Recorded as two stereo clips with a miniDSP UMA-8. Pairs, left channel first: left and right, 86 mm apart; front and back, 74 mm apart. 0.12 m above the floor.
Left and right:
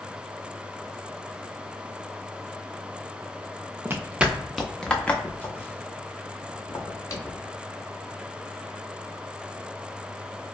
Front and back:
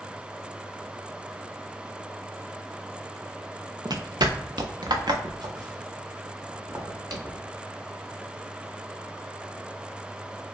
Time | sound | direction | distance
3.9 | footsteps | 155° right | 0.7 m